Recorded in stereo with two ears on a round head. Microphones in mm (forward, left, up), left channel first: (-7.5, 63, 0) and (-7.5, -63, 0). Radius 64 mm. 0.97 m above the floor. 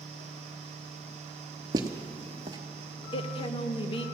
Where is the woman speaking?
35° left (ahead or behind), 0.8 m.